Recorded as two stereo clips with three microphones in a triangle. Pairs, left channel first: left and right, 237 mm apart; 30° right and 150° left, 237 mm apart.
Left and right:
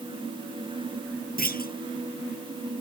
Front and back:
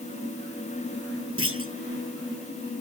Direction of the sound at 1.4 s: 135° left.